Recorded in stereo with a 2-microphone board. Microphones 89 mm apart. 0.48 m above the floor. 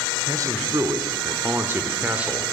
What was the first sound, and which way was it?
A man speaking, 40° right (ahead or behind).